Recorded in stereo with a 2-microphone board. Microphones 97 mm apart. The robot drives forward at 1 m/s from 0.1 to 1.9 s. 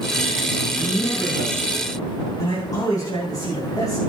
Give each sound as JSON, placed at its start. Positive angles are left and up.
{"t": 0.8, "sound": "a man speaking", "side_deg": 45, "distance_m": 7.5}